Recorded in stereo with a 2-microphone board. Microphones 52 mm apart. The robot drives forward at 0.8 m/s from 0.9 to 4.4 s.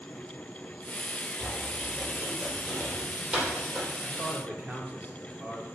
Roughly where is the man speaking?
Right.